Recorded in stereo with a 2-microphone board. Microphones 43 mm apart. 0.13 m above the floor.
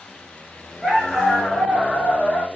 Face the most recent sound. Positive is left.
turn(degrees=0)  # may be behind; listen again after turning